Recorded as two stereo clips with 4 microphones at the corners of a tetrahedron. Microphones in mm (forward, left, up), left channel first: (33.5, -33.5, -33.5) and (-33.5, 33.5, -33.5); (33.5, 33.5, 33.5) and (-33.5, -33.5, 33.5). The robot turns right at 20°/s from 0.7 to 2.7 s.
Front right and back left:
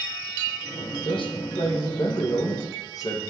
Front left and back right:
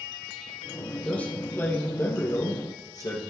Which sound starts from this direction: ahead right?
A man speaking, at 1.1 s.